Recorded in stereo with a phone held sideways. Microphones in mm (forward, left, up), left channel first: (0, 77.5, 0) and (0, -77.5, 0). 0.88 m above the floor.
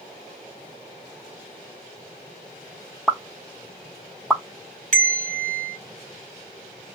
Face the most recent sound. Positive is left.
turn(degrees=-50)  # may be behind; listen again after turning